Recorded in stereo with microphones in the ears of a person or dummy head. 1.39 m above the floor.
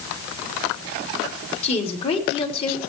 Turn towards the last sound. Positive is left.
turn(degrees=30)  # may be behind; listen again after turning